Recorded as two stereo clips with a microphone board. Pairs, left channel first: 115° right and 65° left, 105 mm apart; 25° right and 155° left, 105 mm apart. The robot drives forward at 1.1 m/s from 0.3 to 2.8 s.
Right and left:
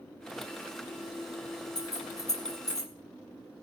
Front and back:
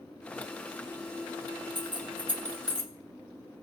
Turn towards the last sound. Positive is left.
turn(degrees=-170)